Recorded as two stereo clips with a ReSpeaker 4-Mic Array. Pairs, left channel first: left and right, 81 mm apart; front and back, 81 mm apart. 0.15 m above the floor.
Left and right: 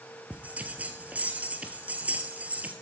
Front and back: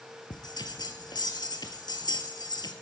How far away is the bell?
About 1.5 m.